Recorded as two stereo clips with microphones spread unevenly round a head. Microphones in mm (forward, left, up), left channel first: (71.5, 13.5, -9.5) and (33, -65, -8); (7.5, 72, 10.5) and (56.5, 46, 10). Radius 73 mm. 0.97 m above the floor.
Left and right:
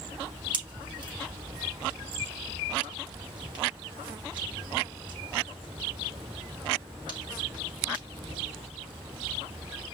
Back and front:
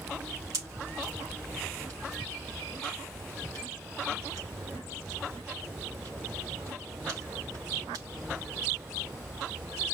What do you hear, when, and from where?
0.5 s a pop: 90° right, 3 m